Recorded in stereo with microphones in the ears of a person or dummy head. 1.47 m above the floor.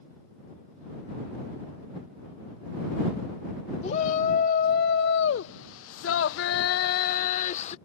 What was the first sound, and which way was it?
A shout, 45° left (ahead or behind).